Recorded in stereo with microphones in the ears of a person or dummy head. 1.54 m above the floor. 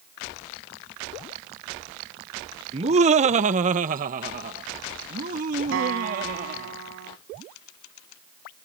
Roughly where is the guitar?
Right.